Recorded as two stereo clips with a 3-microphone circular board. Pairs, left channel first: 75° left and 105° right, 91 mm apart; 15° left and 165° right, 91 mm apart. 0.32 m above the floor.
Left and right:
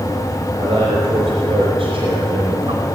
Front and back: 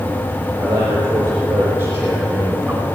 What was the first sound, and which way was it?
A man speaking, 130° right.